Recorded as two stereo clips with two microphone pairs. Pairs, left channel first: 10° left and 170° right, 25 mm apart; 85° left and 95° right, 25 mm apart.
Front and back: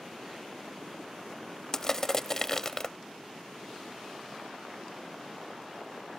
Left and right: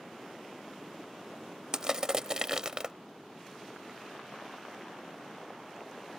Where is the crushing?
50° right.